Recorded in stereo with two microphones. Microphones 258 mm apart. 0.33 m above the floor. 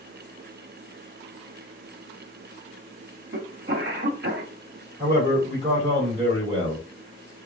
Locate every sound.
3.3 s a cough: 50° right (ahead or behind), 1.6 m
5.0 s a man speaking: 25° right (ahead or behind), 1.6 m